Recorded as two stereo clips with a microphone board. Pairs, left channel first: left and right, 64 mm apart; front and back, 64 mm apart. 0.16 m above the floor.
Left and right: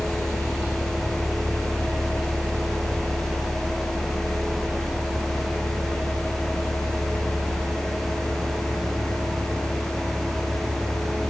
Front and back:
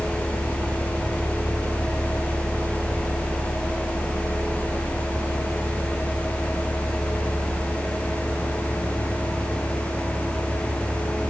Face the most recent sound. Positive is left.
No sound to turn to.